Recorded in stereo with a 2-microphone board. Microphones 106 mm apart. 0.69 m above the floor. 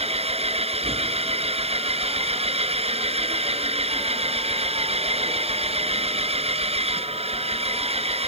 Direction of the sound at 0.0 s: 75° right (ahead or behind).